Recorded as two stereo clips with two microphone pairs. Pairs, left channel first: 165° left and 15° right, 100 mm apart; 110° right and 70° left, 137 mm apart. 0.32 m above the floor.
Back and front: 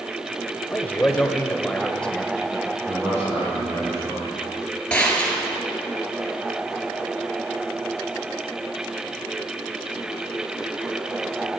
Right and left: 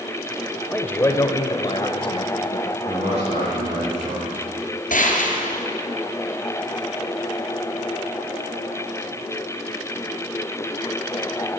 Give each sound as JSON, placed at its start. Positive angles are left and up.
{"t": 0.7, "sound": "a man speaking", "azimuth_deg": 180, "distance_m": 1.0}
{"t": 2.9, "sound": "a man speaking", "azimuth_deg": 45, "distance_m": 4.5}
{"t": 4.9, "sound": "a gunshot", "azimuth_deg": -115, "distance_m": 1.7}